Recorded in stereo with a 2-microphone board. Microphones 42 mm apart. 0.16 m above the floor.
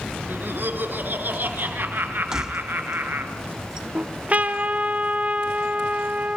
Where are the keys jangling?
15° right (ahead or behind), 0.7 m.